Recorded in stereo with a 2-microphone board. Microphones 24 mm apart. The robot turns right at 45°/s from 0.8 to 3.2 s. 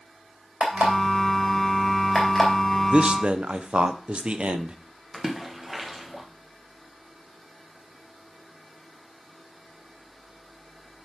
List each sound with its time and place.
0.6 s an alarm clock: 65° right (ahead or behind), 3 m; by 2.5 s 5° left (ahead or behind), 3 m
2.9 s a man speaking: 45° right (ahead or behind), 0.7 m; by 4.8 s 55° right (ahead or behind), 0.7 m
5.1 s a splash: 10° right (ahead or behind), 1.3 m